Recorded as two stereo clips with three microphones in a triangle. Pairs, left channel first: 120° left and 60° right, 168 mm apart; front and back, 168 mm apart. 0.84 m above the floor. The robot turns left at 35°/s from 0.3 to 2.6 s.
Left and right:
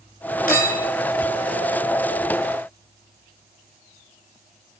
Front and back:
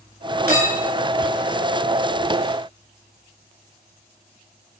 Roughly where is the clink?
Behind left.